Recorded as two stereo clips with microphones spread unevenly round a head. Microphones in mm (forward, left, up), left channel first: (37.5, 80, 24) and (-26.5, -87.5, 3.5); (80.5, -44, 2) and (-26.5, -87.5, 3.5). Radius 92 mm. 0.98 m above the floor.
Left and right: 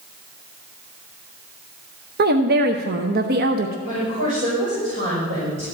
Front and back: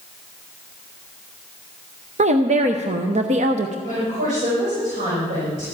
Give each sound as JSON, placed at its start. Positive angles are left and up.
{"t": 2.2, "sound": "a woman speaking", "azimuth_deg": -140, "distance_m": 0.7}
{"t": 3.9, "sound": "a woman speaking", "azimuth_deg": -160, "distance_m": 5.0}